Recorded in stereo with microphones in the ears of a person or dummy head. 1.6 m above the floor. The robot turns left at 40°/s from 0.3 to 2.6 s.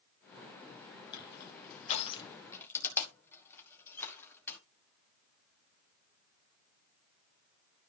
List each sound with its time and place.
1.1 s crushing: 70° left (ahead or behind), 2 m; by 4.6 s 10° left (ahead or behind), 2 m